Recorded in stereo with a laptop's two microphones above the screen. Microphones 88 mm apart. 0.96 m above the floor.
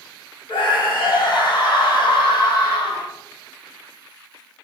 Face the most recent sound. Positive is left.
turn(degrees=55)  # may be behind; listen again after turning